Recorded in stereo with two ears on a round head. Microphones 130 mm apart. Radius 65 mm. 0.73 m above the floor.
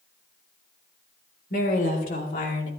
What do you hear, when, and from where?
1.5 s a woman speaking: 65° left (ahead or behind), 3.5 m; by 2.7 s 60° left (ahead or behind), 2 m